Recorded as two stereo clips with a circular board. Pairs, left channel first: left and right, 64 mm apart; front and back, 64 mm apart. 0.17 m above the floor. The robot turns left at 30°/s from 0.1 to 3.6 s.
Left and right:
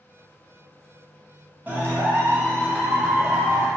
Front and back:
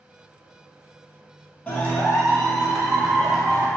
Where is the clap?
55° right, 1.2 m; by 3.7 s 110° right, 1.2 m.